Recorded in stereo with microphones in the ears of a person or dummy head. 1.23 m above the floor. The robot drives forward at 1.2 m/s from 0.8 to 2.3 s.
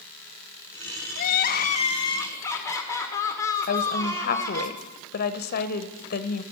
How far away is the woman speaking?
About 0.8 m.